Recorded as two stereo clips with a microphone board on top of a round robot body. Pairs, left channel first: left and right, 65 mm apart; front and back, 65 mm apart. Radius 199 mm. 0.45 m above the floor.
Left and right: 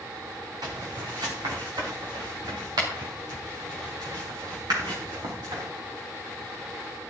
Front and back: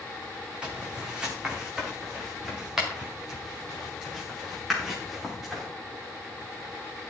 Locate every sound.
0.6 s footsteps: 105° right, 3 m; by 5.6 s 90° right, 7.5 m